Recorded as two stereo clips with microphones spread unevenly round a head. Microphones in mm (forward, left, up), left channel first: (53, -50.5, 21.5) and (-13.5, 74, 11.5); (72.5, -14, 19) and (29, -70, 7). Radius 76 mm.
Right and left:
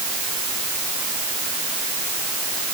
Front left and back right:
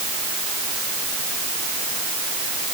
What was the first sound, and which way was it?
Only background noise.